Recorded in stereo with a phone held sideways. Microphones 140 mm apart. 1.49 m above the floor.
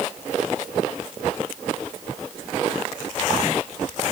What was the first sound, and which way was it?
Only background noise.